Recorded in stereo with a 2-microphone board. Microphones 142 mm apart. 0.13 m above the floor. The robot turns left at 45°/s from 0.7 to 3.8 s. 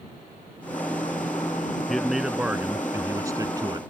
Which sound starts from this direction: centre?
A man speaking, at 1.9 s.